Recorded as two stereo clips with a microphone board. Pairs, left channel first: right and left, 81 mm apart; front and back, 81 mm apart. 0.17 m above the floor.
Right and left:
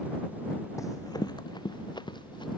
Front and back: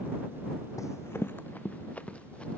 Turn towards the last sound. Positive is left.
turn(degrees=-75)